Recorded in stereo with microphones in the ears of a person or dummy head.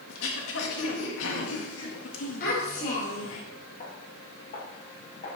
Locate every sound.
0.1 s throat clearing: 80° left, 1.8 m
2.4 s a child speaking: 50° left (ahead or behind), 3 m
3.8 s footsteps: 40° left (ahead or behind), 4.5 m; by 5.4 s 50° left (ahead or behind), 5.5 m